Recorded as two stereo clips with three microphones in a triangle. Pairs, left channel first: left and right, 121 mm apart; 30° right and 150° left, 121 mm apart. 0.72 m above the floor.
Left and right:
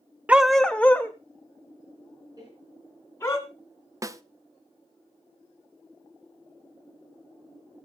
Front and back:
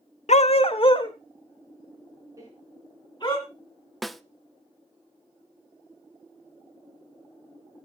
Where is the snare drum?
120° right, 0.5 m.